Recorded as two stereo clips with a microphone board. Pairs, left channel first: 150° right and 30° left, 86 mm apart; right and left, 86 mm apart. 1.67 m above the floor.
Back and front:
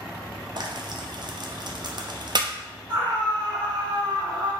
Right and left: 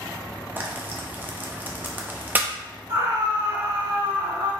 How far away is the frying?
About 0.5 m.